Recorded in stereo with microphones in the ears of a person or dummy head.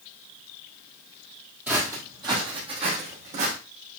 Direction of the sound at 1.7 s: 10° right (ahead or behind).